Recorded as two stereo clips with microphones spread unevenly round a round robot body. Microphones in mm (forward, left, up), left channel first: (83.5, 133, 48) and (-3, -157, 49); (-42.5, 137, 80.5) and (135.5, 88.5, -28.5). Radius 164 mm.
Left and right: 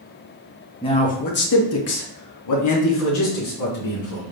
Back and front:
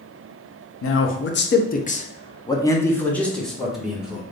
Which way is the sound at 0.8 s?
140° left.